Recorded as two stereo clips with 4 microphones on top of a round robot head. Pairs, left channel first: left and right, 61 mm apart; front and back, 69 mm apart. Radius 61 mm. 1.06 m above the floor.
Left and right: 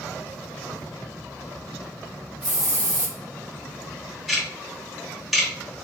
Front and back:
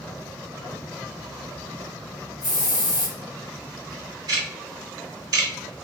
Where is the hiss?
20° right, 1.0 m.